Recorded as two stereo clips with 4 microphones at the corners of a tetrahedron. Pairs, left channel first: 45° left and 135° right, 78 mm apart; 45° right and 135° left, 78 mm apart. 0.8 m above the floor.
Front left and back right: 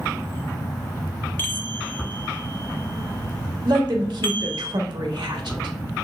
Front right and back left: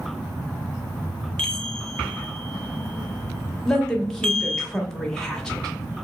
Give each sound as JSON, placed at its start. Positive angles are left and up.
{"t": 1.4, "sound": "a chime", "azimuth_deg": 25, "distance_m": 0.6}
{"t": 3.6, "sound": "a woman speaking", "azimuth_deg": -125, "distance_m": 1.0}